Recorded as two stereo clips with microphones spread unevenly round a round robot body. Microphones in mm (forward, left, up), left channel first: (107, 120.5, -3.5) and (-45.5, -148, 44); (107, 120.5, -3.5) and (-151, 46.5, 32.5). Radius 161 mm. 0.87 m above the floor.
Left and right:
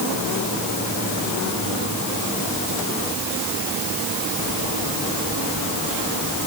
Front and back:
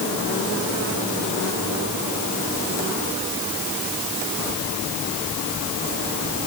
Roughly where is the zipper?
No zipper in this recording.